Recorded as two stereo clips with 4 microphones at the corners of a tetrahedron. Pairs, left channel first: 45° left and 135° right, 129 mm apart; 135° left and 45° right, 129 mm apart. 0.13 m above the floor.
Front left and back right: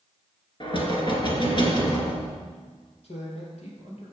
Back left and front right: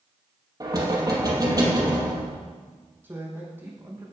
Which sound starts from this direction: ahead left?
A man speaking, at 3.0 s.